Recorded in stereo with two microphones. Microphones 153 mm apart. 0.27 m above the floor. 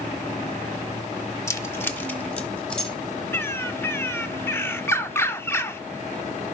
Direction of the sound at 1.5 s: 20° left (ahead or behind).